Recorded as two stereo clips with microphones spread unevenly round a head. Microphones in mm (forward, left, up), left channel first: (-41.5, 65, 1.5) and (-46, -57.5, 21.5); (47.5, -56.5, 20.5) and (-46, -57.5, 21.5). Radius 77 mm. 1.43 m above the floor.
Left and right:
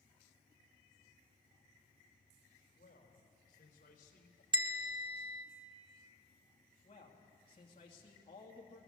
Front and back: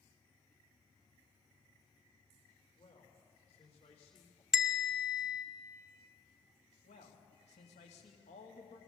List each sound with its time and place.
2.8 s a man speaking: 40° left, 5 m; by 4.4 s 50° left, 2.5 m
4.5 s a bell: 95° right, 1.1 m
6.8 s a man speaking: 30° left, 2.5 m